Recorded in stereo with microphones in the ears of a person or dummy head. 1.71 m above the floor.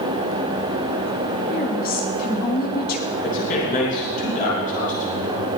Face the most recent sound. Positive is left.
turn(degrees=45)  # may be behind; listen again after turning